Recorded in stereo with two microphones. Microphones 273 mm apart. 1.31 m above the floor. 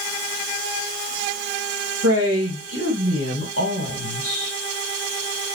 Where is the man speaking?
60° right (ahead or behind), 2 m.